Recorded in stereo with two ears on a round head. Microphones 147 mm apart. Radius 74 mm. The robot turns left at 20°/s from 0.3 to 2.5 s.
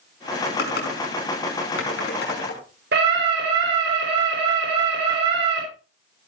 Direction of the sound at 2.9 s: 70° right (ahead or behind).